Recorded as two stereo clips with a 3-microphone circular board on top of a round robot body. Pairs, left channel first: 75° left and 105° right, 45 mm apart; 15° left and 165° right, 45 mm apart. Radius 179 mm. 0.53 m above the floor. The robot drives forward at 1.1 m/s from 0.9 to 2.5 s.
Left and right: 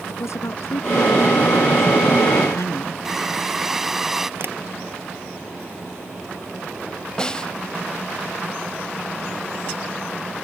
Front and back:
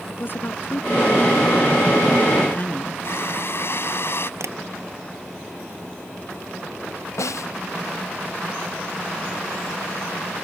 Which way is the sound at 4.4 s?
145° right.